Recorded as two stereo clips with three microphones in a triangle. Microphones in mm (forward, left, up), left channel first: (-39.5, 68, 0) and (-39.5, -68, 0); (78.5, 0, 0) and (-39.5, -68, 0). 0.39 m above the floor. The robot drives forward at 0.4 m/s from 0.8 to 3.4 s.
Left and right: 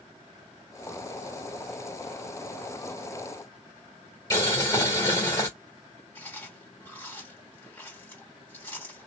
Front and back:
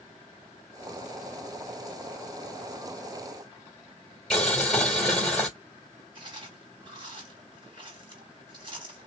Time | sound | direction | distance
4.3 | boiling | 115° left | 1.4 m
6.2 | chewing | 160° left | 2 m